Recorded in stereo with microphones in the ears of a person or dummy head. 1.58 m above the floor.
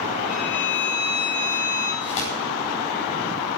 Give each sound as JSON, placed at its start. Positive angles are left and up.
{"t": 0.3, "sound": "a violin", "side_deg": 40, "distance_m": 8.5}
{"t": 2.0, "sound": "tearing paper", "side_deg": 35, "distance_m": 9.0}